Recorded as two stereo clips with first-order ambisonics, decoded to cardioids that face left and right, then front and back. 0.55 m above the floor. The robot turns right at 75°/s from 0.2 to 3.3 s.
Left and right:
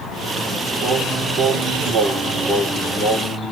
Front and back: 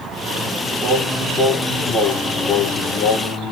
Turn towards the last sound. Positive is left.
turn(degrees=35)